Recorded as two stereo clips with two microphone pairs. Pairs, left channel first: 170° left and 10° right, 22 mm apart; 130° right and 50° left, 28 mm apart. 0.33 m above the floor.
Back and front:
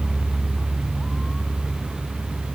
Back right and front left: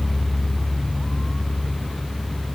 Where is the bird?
No bird in this recording.